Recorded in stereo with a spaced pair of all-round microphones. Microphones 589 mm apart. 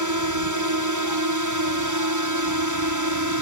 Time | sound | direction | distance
0.0 | a drone | 30° right (ahead or behind) | ?